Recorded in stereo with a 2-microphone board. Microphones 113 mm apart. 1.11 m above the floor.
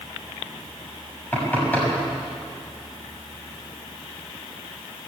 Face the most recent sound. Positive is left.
turn(degrees=15)  # may be behind; listen again after turning